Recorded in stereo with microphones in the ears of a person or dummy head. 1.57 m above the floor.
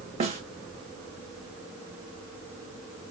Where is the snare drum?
30° right (ahead or behind), 0.6 m.